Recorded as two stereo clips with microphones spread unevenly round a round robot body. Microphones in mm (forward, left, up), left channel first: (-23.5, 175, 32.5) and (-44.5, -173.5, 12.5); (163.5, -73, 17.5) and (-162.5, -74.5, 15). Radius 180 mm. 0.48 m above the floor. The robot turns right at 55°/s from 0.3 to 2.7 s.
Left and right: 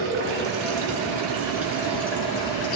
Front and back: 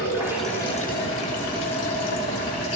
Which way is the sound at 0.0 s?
95° right.